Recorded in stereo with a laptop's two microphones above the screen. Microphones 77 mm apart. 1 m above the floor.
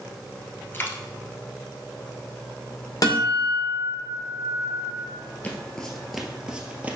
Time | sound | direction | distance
0.7 | a dropped coin | 30° left (ahead or behind) | 1.1 m
3.0 | a guitar | 55° left (ahead or behind) | 1.8 m
5.4 | footsteps | 20° left (ahead or behind) | 1.0 m